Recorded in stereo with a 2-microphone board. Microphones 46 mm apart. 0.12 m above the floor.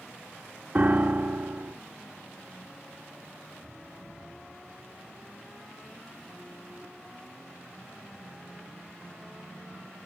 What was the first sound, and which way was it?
A piano, 30° right (ahead or behind).